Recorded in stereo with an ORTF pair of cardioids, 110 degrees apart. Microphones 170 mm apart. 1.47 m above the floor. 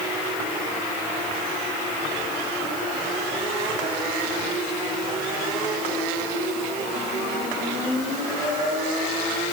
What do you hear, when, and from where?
Only background noise.